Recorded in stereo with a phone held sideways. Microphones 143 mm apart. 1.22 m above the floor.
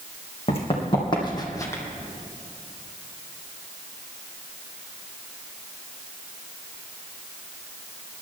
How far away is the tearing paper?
No tearing paper in this recording.